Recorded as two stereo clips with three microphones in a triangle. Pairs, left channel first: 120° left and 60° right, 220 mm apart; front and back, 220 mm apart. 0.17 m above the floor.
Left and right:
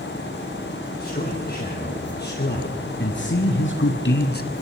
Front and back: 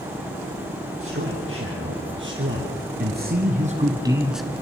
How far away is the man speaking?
About 5 m.